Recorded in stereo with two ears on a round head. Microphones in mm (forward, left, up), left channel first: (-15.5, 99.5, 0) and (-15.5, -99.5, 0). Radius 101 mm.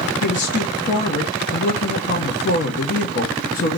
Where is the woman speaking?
45° left (ahead or behind), 1.0 m.